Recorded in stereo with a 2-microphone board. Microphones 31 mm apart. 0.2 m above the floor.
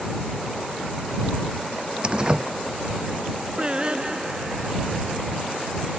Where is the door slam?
30° right (ahead or behind).